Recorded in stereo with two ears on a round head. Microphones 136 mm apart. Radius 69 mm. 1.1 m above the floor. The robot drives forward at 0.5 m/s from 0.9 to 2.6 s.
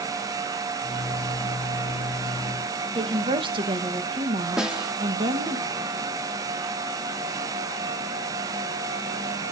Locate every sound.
3.0 s a woman speaking: 35° right (ahead or behind), 1.3 m
4.6 s a snare drum: 5° right (ahead or behind), 0.8 m